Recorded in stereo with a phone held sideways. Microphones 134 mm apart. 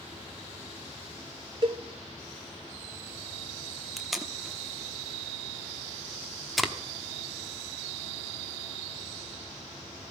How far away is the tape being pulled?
About 1.2 m.